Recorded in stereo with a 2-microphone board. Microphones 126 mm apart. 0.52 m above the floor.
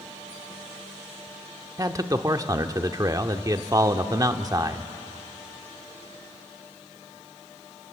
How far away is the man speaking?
About 1.0 m.